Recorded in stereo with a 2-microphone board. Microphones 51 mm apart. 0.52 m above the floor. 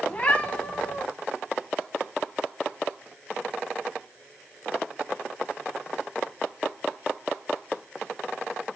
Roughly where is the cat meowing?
Left.